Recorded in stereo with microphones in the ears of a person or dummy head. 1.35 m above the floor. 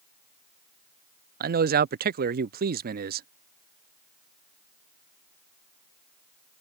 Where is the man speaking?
40° right (ahead or behind).